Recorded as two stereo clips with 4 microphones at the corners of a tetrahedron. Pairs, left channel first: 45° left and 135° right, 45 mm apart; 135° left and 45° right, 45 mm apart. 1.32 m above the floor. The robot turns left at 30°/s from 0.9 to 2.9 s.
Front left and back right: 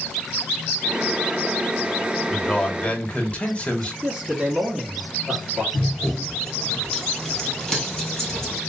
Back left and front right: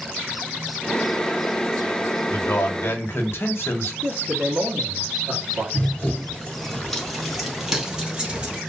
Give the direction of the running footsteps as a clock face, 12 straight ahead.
8 o'clock.